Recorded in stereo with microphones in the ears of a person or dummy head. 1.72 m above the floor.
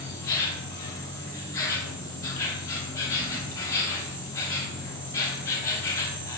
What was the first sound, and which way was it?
An insect, 25° left (ahead or behind).